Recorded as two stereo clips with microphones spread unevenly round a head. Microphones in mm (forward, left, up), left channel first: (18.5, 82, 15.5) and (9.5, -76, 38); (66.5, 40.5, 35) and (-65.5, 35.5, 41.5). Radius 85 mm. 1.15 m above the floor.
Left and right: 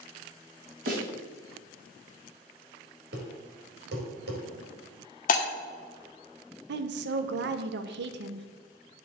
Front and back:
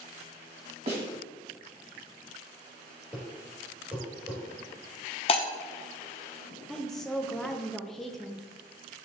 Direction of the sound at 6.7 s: 85° right.